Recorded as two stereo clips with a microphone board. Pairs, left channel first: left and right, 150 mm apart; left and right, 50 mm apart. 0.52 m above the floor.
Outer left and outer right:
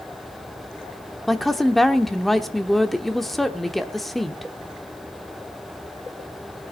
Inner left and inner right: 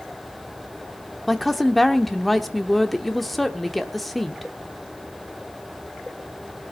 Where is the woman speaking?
Centre (ahead or behind), 1.0 m.